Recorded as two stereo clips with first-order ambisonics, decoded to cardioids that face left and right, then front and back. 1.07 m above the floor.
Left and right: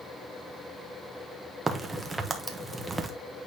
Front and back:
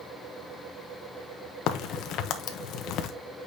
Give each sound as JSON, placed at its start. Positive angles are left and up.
{"t": 1.7, "sound": "a crack", "azimuth_deg": -15, "distance_m": 0.9}